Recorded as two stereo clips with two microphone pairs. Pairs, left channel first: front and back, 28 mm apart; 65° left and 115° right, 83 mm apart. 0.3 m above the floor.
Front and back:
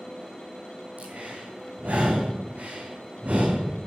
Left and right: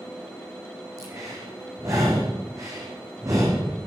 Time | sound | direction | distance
1.0 | breathing | 160° right | 6.5 m